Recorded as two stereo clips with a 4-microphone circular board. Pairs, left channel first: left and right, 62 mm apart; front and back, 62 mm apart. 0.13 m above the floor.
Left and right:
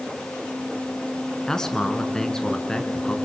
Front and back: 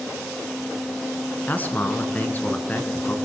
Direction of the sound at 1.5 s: 20° left.